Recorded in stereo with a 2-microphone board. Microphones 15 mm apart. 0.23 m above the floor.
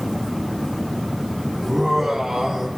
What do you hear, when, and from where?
1.6 s laughter: 55° right (ahead or behind), 7.5 m; by 2.7 s 50° right (ahead or behind), 8.5 m